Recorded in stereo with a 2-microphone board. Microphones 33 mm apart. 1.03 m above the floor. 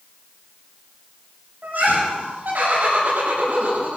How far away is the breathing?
No breathing in this recording.